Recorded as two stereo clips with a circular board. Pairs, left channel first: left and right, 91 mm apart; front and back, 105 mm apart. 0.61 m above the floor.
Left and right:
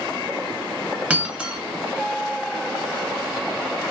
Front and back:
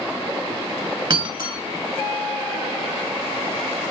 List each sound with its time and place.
1.1 s breaking glass: 160° right, 0.7 m